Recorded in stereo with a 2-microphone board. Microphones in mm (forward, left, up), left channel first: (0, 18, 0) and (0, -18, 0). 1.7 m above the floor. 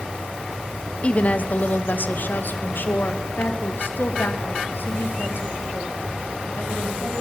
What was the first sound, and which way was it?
A woman speaking, 35° left (ahead or behind).